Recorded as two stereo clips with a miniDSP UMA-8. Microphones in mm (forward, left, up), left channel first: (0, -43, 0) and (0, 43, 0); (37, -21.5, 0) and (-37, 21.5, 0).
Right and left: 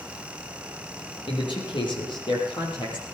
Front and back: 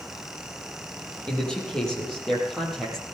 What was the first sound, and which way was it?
A man speaking, 110° right.